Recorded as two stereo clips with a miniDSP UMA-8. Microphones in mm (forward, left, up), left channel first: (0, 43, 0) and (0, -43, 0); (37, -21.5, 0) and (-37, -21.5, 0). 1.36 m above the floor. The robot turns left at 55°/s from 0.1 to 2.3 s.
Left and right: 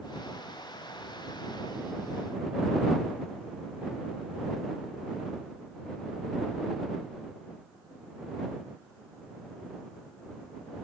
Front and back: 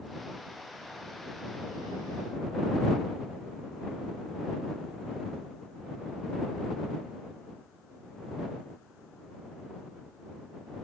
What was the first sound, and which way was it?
Only background noise.